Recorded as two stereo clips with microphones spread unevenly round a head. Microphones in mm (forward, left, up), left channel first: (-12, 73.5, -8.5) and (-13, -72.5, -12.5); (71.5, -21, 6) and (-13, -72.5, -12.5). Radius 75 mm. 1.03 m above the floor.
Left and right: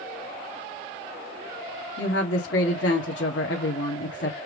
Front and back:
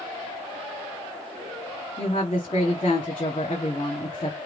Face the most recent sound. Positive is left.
turn(degrees=90)